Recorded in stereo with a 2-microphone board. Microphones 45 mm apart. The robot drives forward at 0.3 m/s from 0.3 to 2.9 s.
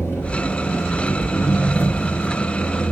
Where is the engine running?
60° left (ahead or behind), 7 m; by 2.9 s 55° left (ahead or behind), 7 m.